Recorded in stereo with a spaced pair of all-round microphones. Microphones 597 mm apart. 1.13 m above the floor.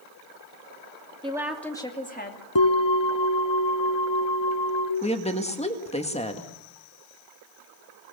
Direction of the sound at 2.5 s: 45° left (ahead or behind).